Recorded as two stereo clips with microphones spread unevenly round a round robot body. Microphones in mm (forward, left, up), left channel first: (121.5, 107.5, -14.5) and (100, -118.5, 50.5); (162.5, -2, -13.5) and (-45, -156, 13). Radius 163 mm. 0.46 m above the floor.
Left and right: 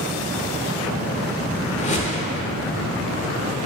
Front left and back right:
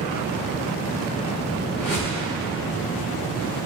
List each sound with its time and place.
1.8 s a whoosh: 65° left, 0.6 m